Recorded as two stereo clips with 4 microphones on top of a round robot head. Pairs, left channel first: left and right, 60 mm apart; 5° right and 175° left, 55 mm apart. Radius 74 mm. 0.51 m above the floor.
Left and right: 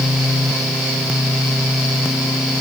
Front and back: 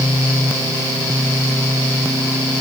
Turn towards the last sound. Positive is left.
No sound to turn to.